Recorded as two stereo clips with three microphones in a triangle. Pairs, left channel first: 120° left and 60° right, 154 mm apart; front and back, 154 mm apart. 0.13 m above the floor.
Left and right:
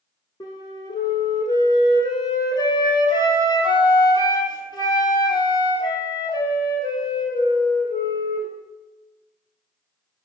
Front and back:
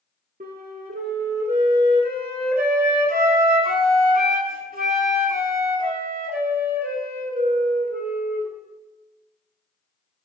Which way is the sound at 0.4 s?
Straight behind.